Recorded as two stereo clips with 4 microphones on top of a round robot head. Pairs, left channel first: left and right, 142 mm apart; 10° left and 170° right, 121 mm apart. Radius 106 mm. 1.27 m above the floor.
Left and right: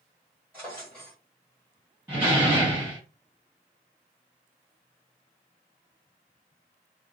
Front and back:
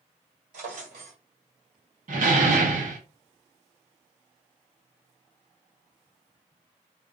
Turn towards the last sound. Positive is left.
turn(degrees=-170)